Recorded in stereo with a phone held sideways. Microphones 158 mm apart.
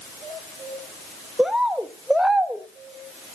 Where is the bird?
Centre (ahead or behind), 0.8 m.